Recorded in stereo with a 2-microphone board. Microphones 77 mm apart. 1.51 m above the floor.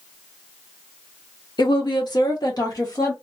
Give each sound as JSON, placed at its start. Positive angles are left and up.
{"t": 1.6, "sound": "a woman speaking", "side_deg": 65, "distance_m": 0.9}